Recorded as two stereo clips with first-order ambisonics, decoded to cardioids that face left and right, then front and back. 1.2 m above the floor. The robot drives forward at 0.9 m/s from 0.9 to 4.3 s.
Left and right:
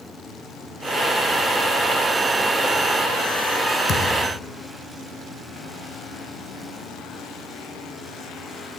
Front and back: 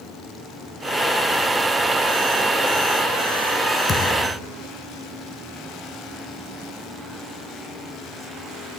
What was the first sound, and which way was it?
A thud, 70° left.